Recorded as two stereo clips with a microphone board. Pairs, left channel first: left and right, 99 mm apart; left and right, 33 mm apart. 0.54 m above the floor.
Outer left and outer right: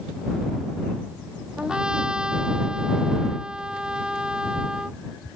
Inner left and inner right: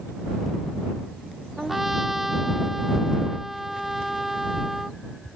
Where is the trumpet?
10° right (ahead or behind).